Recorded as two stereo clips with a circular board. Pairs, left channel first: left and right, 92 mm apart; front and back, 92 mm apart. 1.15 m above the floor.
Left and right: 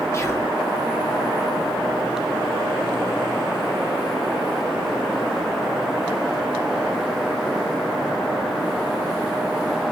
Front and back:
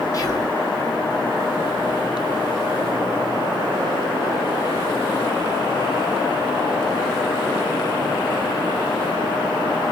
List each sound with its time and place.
0.1 s whispering: 35° left, 0.7 m